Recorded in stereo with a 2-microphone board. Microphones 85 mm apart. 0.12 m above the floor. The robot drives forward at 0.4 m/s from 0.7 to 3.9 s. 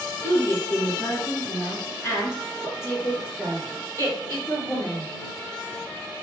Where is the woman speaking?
30° left (ahead or behind), 1.7 m; by 5.1 s 25° left (ahead or behind), 2 m.